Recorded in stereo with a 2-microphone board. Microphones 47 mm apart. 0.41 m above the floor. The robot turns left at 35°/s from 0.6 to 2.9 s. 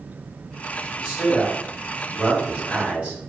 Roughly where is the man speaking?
Ahead left.